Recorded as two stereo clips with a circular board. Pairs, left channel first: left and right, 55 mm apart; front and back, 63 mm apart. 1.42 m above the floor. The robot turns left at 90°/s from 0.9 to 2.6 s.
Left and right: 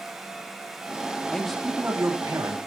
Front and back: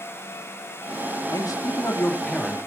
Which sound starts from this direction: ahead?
A man speaking, at 1.3 s.